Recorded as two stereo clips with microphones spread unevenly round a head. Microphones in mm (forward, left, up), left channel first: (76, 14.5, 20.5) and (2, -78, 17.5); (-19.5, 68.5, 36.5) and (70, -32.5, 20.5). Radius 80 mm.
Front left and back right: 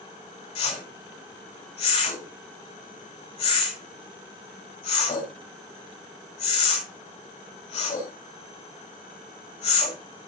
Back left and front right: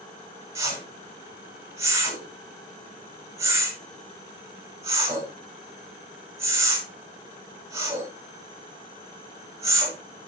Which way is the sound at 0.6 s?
20° left.